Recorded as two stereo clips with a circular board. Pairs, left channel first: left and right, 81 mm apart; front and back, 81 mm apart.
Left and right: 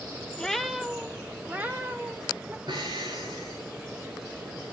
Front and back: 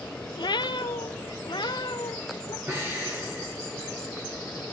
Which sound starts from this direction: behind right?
Breathing, at 2.7 s.